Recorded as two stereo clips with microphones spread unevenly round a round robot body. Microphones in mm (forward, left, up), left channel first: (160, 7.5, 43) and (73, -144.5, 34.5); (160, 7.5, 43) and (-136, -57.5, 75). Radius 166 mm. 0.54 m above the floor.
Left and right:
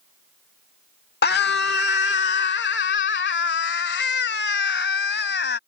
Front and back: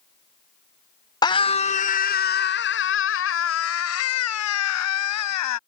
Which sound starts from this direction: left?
A scream, at 1.2 s.